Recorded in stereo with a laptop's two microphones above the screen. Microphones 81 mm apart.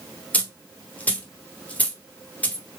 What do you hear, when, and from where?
0.3 s a dropped coin: 20° left (ahead or behind), 1.0 m